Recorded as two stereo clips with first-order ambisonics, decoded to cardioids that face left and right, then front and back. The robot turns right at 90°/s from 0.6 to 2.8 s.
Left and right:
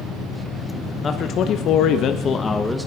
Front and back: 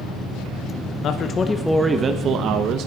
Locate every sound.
1.0 s a man speaking: 30° left, 1.1 m; by 2.9 s 175° right, 1.1 m